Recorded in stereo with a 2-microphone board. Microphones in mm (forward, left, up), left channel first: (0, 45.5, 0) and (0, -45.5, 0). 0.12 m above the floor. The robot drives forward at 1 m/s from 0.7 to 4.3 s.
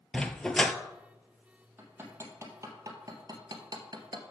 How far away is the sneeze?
No sneeze in this recording.